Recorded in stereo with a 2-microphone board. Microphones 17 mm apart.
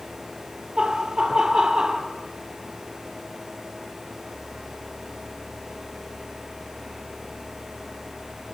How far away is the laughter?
About 4 m.